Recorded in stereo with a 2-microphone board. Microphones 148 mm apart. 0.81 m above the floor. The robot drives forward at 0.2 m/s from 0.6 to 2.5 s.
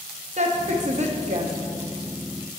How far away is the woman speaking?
About 0.9 m.